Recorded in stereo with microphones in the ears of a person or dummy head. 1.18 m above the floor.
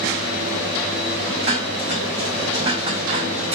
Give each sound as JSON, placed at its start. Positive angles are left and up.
{"t": 1.4, "sound": "dishes clattering", "side_deg": -25, "distance_m": 2.5}